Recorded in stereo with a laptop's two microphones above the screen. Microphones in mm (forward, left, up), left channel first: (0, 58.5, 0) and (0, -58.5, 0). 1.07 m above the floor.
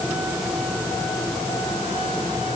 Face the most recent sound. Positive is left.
No sound to turn to.